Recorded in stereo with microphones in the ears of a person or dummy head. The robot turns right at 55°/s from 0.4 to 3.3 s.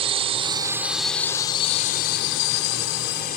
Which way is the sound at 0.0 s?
40° right.